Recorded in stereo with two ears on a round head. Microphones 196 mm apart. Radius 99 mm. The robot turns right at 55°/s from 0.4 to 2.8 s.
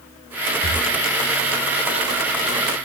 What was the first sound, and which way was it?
Breathing, 30° right (ahead or behind).